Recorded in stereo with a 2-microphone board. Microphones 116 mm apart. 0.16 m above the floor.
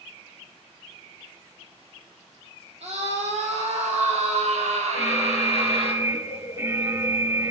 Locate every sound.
2.8 s a scream: 65° right (ahead or behind), 6 m; by 5.9 s 60° right (ahead or behind), 4.5 m
4.9 s an alarm: 25° right (ahead or behind), 1.0 m